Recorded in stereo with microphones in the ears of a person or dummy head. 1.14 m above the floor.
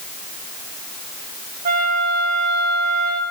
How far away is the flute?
About 1.2 m.